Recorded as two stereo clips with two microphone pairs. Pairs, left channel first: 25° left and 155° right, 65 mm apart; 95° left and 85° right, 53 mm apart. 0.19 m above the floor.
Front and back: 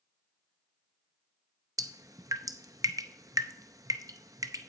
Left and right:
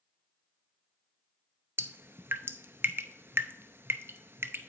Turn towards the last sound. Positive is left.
turn(degrees=-130)